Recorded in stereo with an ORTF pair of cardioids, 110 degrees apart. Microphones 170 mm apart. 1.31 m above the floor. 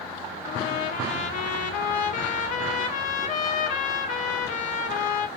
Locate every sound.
0.5 s a trumpet: 55° left, 0.5 m